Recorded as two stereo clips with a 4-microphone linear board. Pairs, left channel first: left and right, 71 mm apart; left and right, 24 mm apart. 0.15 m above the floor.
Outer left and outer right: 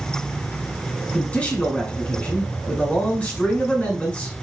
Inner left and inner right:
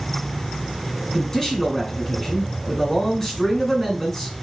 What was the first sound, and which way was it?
A man speaking, 20° left (ahead or behind).